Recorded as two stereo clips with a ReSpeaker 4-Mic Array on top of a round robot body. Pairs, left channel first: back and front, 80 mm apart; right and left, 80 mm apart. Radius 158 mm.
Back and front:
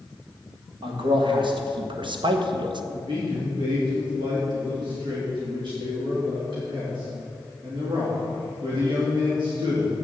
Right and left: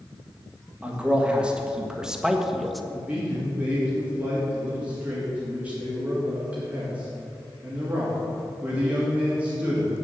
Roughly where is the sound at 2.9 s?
Ahead.